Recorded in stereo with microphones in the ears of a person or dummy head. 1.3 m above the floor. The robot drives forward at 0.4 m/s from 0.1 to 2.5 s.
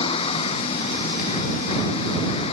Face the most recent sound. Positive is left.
turn(degrees=35)  # may be behind; listen again after turning